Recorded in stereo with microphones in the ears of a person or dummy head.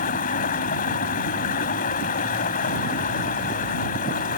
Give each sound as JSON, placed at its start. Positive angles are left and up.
{"t": 0.0, "sound": "running water", "side_deg": 45}